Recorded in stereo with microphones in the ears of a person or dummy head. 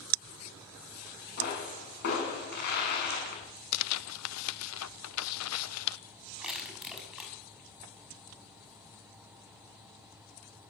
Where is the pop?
50° left (ahead or behind), 7 m.